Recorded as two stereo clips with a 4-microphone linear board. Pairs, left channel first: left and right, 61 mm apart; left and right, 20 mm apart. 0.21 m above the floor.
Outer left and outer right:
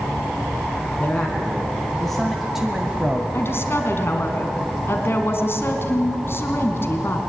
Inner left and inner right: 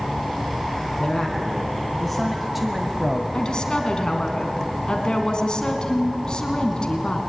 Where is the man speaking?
20° left (ahead or behind), 2.5 m; by 3.2 s 25° right (ahead or behind), 1.5 m.